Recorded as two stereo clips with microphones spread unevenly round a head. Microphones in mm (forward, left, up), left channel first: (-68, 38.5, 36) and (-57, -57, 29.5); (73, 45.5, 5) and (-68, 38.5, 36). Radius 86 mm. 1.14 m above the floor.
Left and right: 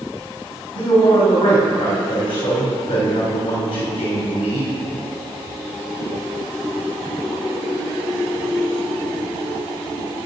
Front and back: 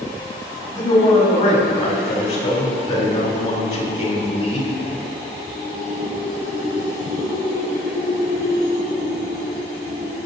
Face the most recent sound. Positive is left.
turn(degrees=60)